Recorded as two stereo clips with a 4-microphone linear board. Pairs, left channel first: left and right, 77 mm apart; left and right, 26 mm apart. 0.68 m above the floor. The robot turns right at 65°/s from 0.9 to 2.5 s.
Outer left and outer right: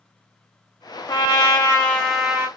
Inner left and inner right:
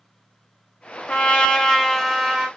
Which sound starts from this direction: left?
A trumpet, at 1.1 s.